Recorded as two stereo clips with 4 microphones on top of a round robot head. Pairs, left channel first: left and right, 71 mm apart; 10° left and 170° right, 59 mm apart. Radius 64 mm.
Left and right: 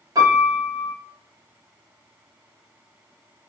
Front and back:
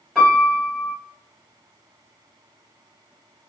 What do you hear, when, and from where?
0.1 s a piano: 75° right, 1.9 m